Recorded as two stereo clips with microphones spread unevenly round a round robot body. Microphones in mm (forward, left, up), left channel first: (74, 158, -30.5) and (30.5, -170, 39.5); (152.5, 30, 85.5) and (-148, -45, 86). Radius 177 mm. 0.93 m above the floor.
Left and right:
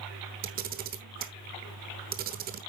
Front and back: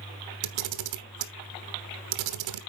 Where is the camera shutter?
155° right, 1.1 m.